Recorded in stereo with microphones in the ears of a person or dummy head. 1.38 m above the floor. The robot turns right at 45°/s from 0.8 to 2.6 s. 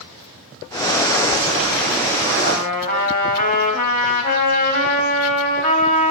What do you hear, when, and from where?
2.4 s a trumpet: 55° left (ahead or behind), 3.5 m; by 6.1 s 45° left (ahead or behind), 3.5 m